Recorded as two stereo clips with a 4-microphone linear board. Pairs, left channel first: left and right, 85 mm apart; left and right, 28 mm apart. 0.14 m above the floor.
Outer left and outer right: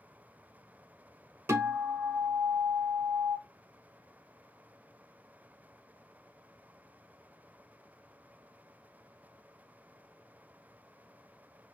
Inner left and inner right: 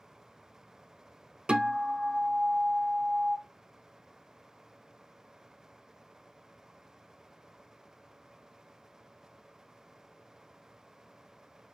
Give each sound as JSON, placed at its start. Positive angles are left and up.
{"t": 1.5, "sound": "a guitar", "side_deg": -30, "distance_m": 0.7}